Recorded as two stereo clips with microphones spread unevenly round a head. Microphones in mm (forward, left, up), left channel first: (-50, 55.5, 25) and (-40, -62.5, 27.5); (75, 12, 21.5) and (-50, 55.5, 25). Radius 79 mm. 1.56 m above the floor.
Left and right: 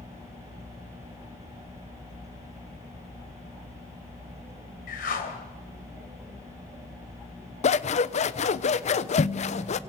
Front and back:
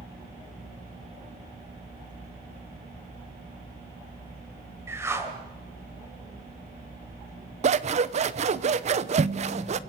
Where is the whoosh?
90° left, 3 m.